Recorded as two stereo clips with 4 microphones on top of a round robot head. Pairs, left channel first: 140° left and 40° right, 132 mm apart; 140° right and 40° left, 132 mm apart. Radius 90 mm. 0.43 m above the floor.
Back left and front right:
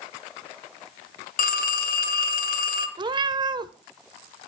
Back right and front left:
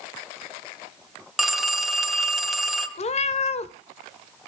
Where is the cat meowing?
100° right, 0.8 m.